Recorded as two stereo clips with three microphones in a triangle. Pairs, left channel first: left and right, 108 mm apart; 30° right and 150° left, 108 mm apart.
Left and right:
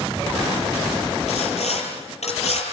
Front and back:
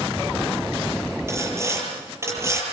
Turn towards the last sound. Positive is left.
turn(degrees=85)